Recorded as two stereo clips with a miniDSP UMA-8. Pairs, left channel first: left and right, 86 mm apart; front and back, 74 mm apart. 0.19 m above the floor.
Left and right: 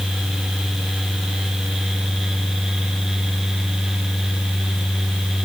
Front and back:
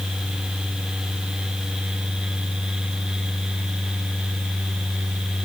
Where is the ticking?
I don't hear ticking.